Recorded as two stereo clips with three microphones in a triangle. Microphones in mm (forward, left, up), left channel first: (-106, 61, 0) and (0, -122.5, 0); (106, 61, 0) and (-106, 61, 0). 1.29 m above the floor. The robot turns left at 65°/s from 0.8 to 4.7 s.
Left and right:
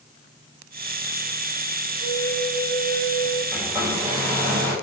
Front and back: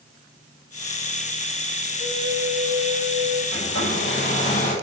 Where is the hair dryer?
35° left, 7 m; by 4.8 s 45° right, 7 m.